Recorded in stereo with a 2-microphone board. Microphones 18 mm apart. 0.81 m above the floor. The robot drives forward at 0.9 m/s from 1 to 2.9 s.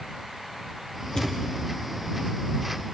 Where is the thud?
35° left (ahead or behind), 4 m; by 1.5 s 40° left (ahead or behind), 3.5 m.